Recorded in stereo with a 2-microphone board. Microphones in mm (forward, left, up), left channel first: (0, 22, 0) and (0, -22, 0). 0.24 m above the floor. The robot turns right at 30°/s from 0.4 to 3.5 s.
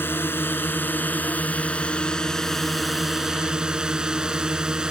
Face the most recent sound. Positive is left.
turn(degrees=-160)